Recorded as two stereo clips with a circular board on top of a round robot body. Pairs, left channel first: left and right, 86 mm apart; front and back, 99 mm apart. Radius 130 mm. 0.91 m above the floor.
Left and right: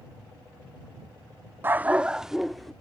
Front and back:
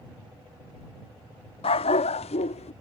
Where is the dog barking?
25° right; by 2.7 s 5° left.